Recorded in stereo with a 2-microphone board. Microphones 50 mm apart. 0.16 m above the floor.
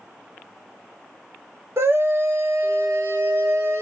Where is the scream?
60° right (ahead or behind), 3 m.